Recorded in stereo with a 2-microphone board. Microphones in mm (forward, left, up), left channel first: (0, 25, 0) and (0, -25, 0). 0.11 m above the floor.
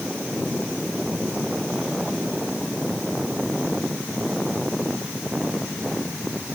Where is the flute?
No flute in this recording.